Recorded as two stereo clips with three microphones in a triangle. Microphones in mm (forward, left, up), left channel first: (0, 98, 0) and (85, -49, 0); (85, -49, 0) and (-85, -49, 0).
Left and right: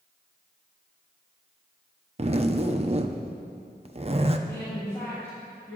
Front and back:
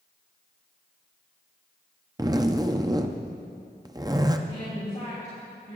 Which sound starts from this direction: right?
A zipper, at 2.2 s.